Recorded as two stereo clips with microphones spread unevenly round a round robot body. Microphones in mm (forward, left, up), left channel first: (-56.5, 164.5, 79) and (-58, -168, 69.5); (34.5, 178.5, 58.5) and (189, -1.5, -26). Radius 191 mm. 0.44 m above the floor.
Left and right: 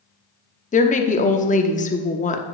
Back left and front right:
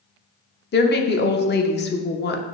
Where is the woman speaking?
115° left, 0.7 m.